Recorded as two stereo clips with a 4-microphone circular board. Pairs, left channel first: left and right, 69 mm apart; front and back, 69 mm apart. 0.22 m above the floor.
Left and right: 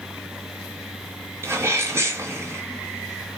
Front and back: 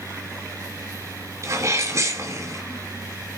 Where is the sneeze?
140° right, 4 m.